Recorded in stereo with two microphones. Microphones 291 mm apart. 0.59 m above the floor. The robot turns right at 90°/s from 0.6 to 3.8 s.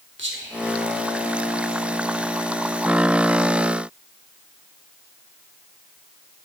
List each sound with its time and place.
0.2 s whispering: 40° right (ahead or behind), 1.4 m; by 1.8 s 50° left (ahead or behind), 1.4 m